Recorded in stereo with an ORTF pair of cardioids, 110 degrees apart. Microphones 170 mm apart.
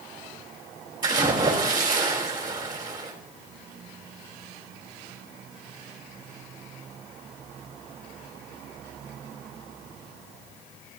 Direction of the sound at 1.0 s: 25° right.